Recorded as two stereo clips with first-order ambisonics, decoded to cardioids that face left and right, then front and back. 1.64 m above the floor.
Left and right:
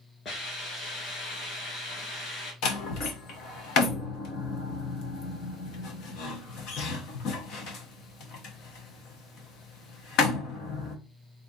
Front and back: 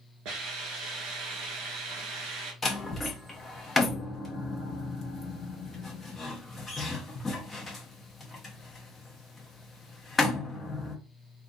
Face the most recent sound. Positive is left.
turn(degrees=75)